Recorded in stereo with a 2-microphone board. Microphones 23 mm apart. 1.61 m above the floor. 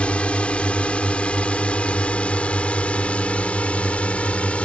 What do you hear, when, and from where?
0.0 s a drone: 60° left (ahead or behind); by 4.7 s 65° left (ahead or behind)